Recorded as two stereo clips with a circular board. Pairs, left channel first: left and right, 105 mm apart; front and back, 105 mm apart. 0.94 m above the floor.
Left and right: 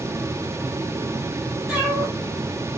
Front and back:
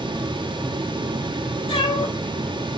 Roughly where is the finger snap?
No finger snap in this recording.